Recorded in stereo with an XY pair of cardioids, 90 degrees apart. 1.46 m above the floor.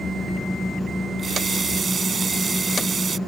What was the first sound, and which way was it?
A running tap, 45° right.